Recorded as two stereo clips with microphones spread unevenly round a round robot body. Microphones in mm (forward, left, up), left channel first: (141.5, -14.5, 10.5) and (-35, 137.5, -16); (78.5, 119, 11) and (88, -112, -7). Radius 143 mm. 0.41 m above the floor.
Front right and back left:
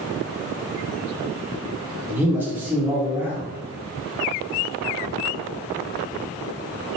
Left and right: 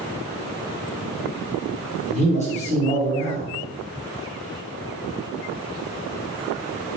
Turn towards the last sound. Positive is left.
turn(degrees=85)